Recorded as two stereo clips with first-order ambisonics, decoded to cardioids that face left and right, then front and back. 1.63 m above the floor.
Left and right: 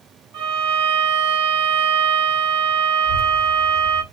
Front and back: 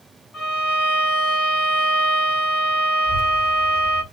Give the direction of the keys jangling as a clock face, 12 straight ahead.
No keys jangling in this recording.